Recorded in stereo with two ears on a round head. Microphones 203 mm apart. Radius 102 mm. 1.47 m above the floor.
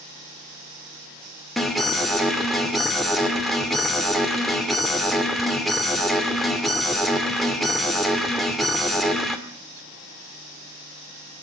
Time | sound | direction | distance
1.6 | an alarm | centre (ahead or behind) | 2.5 m